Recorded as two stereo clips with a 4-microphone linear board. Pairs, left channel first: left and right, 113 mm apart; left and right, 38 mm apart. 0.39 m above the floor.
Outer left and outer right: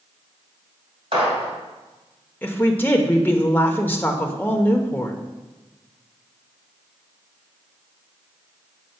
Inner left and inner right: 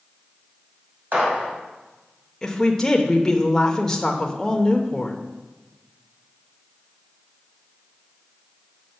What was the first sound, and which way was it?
A gunshot, 55° right (ahead or behind).